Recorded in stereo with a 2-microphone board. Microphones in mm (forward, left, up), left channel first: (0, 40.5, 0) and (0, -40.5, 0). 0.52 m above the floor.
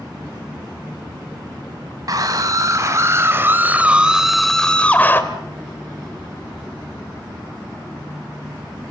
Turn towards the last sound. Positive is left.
turn(degrees=25)  # may be behind; listen again after turning